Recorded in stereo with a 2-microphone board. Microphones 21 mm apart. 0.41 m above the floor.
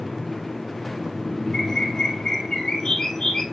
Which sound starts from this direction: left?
A bird, at 1.5 s.